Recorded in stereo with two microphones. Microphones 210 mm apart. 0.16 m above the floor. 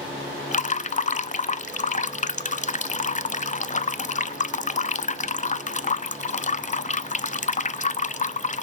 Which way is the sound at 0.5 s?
35° left (ahead or behind).